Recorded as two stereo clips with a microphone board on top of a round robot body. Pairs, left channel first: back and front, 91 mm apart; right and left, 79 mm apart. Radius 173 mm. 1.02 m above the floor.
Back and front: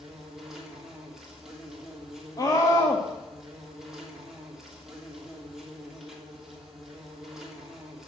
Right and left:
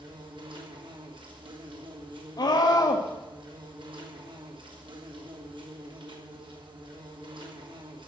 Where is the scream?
125° right, 1.8 m.